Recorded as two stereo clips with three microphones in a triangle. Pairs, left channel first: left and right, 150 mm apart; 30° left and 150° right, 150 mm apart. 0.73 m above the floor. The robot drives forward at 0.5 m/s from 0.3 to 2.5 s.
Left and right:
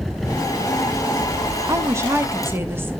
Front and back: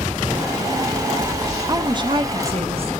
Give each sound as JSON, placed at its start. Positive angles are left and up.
{"t": 1.7, "sound": "a woman speaking", "azimuth_deg": -130, "distance_m": 0.7}